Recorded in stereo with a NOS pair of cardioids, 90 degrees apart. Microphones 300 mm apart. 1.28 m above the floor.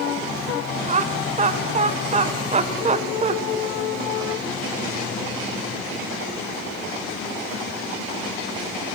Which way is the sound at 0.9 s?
25° right.